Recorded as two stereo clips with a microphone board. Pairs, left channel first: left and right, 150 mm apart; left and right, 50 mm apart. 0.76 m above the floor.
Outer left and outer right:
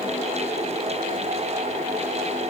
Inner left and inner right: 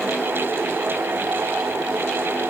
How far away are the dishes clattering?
I don't hear dishes clattering.